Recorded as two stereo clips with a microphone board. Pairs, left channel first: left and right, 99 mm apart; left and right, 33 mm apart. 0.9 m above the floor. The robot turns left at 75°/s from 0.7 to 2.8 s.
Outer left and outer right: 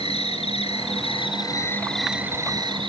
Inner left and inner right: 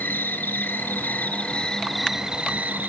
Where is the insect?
100° left, 1.6 m; by 2.9 s 60° right, 1.6 m.